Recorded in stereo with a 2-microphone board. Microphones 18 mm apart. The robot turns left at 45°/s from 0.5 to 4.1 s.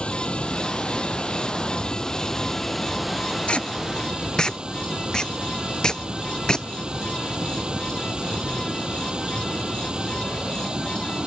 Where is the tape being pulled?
70° left (ahead or behind); by 6.7 s 40° left (ahead or behind).